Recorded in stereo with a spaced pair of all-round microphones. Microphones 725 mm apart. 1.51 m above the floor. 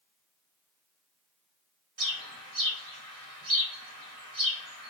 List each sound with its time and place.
2.0 s a bird: 50° right (ahead or behind), 1.1 m